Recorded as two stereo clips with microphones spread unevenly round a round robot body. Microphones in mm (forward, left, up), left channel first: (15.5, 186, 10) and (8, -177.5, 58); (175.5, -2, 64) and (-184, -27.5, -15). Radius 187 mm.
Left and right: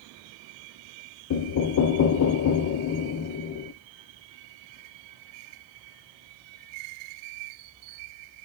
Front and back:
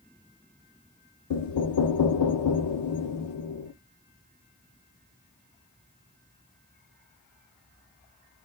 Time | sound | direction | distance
1.3 | knocking | 50° left | 0.6 m